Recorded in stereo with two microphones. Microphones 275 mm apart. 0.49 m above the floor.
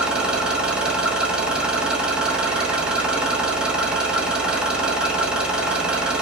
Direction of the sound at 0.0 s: 5° right (ahead or behind).